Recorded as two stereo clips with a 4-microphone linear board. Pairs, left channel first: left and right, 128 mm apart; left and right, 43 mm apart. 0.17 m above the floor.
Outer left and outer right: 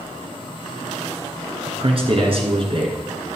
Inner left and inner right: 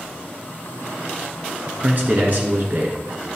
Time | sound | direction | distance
1.7 | a man speaking | 50° right (ahead or behind) | 2.5 m